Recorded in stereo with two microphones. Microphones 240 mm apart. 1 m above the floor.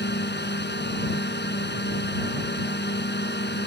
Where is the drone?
45° left (ahead or behind).